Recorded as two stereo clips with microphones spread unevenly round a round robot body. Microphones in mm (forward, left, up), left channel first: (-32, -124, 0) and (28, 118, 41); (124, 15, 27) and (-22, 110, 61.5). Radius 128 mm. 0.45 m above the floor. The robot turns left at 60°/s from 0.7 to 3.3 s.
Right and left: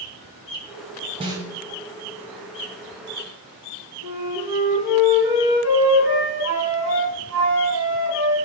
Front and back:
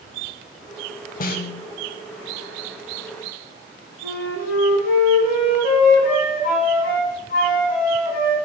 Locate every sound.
1.2 s a snare drum: 10° left, 0.5 m; by 1.6 s 15° right, 0.5 m
4.0 s a flute: straight ahead, 1.8 m